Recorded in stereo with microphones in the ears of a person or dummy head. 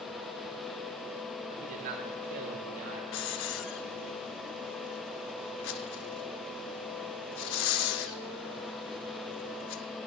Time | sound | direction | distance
1.5 | a man speaking | 45° right (ahead or behind) | 1.5 m
3.1 | a hiss | 65° left (ahead or behind) | 0.7 m